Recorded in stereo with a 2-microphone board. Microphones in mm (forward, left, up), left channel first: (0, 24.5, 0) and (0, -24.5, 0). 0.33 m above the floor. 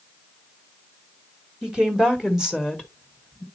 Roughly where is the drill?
I don't hear a drill.